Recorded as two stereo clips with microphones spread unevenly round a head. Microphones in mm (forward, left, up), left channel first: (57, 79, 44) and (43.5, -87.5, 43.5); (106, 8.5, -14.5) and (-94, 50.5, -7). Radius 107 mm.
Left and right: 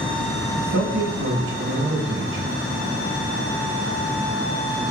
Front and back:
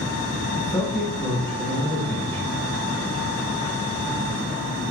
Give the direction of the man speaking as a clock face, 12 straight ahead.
3 o'clock.